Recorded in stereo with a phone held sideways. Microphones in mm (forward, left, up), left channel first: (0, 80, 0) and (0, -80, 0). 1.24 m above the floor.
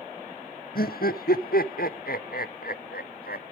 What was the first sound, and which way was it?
Laughter, 70° left (ahead or behind).